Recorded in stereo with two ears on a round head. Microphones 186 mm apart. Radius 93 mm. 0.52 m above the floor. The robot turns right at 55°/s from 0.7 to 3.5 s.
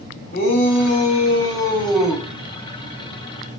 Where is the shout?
110° left, 1.1 m; by 2.2 s 165° right, 1.1 m.